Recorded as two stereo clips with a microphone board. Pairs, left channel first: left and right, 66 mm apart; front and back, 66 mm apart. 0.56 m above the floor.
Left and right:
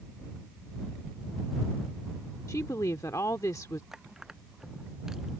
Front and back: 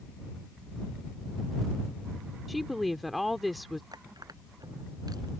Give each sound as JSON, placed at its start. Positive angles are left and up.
{"t": 2.5, "sound": "a woman speaking", "azimuth_deg": 90}
{"t": 3.9, "sound": "crushing", "azimuth_deg": -175}